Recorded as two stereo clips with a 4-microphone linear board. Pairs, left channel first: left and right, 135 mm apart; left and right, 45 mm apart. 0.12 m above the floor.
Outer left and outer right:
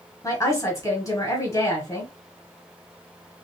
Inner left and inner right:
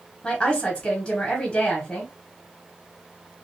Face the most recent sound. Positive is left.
turn(degrees=20)  # may be behind; listen again after turning